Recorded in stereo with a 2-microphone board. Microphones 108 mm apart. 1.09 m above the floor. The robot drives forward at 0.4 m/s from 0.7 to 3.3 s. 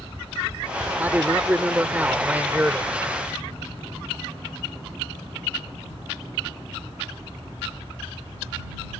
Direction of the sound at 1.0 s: 20° right (ahead or behind).